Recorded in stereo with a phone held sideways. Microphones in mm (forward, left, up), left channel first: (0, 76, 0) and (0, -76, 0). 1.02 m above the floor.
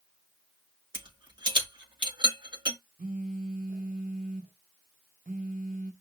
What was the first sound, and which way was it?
A rattle, 35° right (ahead or behind).